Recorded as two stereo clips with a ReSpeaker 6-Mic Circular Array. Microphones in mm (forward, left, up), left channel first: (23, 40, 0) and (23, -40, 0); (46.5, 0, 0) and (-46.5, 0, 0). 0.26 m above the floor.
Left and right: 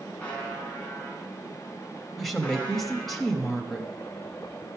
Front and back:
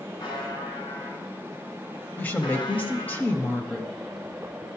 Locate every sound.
0.2 s a buzzer: 20° left, 2.5 m
2.2 s a woman speaking: 5° left, 0.9 m